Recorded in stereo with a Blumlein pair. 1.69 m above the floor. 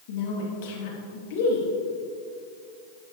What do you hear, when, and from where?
0.1 s a woman speaking: 50° left, 2.5 m